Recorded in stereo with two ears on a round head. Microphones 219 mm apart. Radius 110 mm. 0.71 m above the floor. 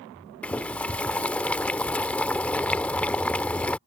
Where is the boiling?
5° left (ahead or behind).